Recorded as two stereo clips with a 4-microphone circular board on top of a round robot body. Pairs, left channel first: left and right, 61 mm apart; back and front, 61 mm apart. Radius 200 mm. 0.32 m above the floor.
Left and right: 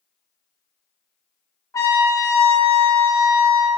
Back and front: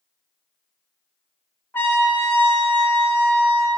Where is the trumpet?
125° left, 1.1 m.